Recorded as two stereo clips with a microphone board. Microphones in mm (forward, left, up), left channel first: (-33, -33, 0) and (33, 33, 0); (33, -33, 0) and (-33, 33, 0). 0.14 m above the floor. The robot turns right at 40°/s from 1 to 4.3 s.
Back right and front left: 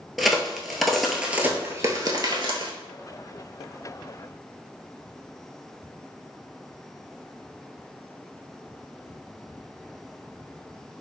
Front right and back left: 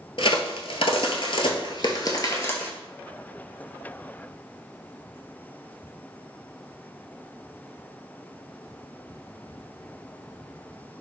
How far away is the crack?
About 0.7 m.